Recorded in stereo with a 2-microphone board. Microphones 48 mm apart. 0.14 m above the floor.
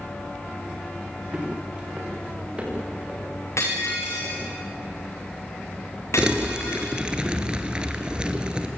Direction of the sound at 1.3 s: 20° right (ahead or behind).